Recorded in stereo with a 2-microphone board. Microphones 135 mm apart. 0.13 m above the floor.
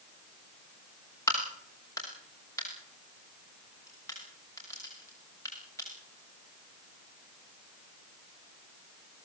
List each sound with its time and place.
1.3 s a crack: 20° left (ahead or behind), 8 m